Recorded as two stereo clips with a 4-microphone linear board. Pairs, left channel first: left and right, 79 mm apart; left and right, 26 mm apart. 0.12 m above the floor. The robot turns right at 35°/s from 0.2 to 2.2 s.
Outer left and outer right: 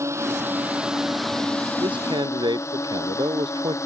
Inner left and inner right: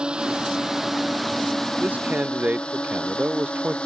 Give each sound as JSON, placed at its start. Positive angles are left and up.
{"t": 0.0, "sound": "a drone", "side_deg": -35}
{"t": 1.8, "sound": "a man speaking", "side_deg": -75}